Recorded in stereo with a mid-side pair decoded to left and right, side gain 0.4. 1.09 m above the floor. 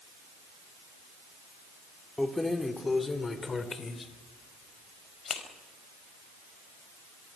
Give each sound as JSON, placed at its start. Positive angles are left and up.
{"t": 2.2, "sound": "keys jangling", "azimuth_deg": 10, "distance_m": 2.0}